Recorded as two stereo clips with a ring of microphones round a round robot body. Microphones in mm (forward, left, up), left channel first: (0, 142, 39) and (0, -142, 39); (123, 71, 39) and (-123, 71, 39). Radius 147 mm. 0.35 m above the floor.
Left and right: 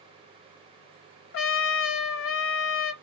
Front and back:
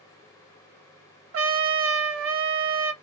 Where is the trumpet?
140° left, 0.7 m.